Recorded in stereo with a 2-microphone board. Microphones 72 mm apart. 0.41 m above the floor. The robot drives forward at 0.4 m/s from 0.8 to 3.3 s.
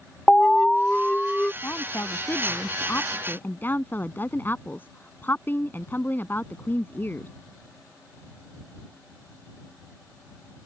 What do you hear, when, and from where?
0.3 s an alarm: 15° left (ahead or behind); by 1.5 s 10° left (ahead or behind)
1.6 s a woman speaking: 35° left (ahead or behind); by 7.3 s 30° left (ahead or behind)